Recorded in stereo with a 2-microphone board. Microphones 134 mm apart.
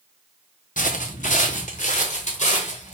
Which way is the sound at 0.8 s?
75° left (ahead or behind).